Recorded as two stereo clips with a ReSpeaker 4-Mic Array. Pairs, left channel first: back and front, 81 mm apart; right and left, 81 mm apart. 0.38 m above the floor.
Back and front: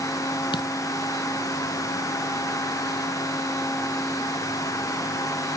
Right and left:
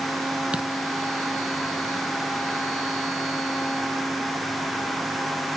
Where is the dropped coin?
165° left.